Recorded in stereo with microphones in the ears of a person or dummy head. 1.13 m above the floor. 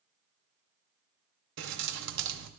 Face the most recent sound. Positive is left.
turn(degrees=-65)  # may be behind; listen again after turning